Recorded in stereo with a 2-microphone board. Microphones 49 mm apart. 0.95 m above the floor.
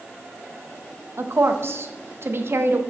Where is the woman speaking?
55° right (ahead or behind), 0.8 m.